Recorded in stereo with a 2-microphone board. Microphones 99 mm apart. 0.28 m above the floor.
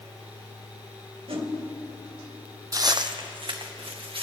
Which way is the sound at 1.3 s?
75° right (ahead or behind).